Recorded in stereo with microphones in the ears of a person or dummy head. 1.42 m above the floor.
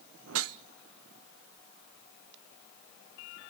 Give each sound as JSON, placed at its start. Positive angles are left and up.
{"t": 0.3, "sound": "a whoosh", "side_deg": -70, "distance_m": 0.8}